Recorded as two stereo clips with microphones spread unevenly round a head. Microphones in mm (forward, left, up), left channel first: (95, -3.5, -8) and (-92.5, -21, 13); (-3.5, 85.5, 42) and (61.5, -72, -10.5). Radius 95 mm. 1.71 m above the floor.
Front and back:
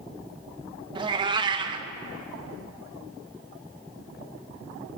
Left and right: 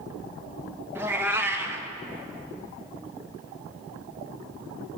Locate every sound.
0.9 s a cat meowing: 170° right, 1.0 m